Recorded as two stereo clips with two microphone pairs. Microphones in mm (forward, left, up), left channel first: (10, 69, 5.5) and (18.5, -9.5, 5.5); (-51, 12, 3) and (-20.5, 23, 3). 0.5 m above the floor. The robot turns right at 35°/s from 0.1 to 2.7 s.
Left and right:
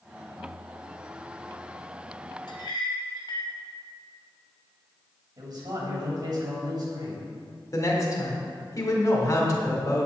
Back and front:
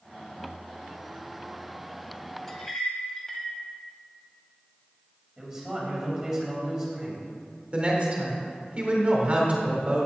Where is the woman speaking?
65° left, 1.9 m.